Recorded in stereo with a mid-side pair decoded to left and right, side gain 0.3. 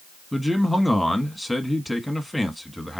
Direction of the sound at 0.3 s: 5° left.